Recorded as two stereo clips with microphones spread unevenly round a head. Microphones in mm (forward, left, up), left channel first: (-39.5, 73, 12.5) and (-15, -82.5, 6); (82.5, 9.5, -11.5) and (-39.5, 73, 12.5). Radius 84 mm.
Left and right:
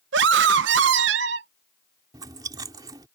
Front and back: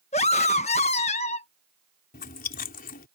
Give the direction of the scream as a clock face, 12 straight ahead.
3 o'clock.